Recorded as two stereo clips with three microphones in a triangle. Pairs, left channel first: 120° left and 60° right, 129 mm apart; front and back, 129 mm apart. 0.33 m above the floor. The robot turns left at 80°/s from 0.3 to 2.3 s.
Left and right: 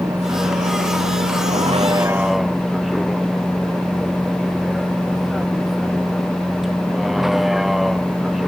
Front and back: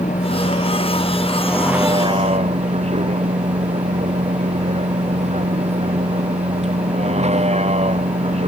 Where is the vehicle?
10° left; by 8.5 s 150° right.